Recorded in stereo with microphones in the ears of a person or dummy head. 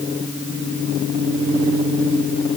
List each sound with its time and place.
Only background noise.